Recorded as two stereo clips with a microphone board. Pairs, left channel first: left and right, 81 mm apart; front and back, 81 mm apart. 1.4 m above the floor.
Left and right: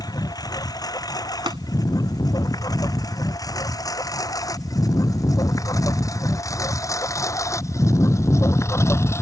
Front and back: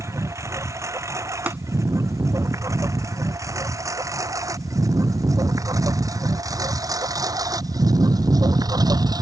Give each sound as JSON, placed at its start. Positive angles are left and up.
{"t": 0.0, "sound": "a lawn mower", "azimuth_deg": 125}
{"t": 1.5, "sound": "tapping", "azimuth_deg": -110}